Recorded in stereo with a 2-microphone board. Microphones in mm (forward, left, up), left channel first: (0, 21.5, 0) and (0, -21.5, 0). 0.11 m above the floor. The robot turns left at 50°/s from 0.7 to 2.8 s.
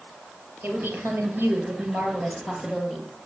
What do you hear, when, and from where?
0.6 s a woman speaking: 50° right, 2.5 m; by 3.1 s 155° right, 2.5 m